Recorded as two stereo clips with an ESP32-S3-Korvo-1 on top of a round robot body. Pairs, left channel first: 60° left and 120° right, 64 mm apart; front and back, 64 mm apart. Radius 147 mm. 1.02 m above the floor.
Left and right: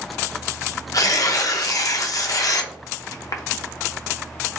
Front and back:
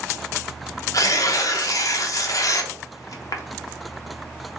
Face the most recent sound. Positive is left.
turn(degrees=30)